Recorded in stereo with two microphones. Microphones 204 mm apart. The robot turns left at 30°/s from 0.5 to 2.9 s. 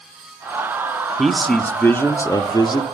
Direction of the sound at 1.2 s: Centre (ahead or behind).